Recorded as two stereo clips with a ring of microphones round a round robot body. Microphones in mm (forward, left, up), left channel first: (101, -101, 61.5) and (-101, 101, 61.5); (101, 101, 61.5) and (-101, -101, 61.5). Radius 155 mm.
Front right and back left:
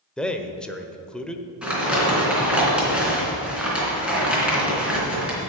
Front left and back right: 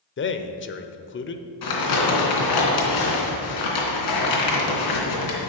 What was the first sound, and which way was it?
A man speaking, 40° left.